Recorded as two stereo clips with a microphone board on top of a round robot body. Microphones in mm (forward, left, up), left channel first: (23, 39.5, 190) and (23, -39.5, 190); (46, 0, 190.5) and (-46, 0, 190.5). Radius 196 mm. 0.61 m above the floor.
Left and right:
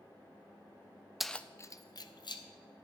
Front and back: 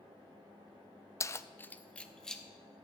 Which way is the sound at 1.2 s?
5° right.